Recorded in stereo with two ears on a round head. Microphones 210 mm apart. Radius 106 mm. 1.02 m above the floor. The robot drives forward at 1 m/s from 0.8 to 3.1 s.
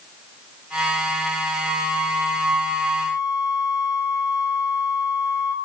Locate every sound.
1.6 s a flute: 70° right (ahead or behind), 3.5 m; by 5.5 s 80° right, 3 m